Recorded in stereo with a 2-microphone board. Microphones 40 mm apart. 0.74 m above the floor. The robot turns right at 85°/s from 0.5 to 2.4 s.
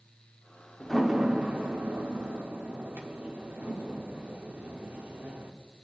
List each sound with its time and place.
0.8 s a door slam: 20° left (ahead or behind), 1.4 m; by 5.5 s 60° right (ahead or behind), 1.4 m